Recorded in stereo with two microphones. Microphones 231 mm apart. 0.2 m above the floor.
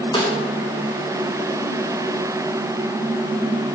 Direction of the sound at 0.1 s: 20° left (ahead or behind).